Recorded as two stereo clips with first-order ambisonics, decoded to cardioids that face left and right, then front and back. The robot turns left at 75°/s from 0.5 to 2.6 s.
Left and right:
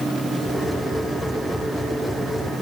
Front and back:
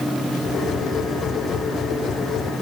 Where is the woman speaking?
I don't hear a woman speaking.